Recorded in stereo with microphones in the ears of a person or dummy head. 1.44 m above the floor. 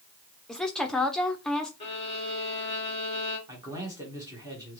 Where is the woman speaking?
5° left (ahead or behind), 0.7 m.